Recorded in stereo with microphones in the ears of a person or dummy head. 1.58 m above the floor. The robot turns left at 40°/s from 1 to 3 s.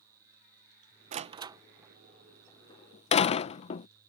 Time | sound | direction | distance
1.1 | a door slam | 30° right (ahead or behind) | ?